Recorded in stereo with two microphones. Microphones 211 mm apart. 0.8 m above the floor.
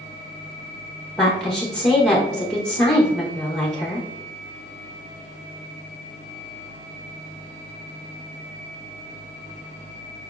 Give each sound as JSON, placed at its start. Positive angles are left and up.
{"t": 1.2, "sound": "a woman speaking", "side_deg": 5, "distance_m": 0.9}